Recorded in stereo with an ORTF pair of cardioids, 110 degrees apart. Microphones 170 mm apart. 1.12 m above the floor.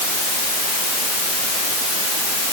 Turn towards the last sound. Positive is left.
No sound to turn to.